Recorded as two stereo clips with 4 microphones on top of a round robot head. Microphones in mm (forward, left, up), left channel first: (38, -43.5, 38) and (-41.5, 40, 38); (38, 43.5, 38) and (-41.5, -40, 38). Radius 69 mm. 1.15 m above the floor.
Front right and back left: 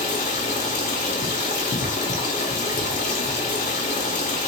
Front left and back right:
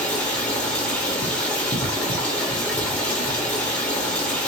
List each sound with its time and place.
0.0 s running water: 30° right, 1.2 m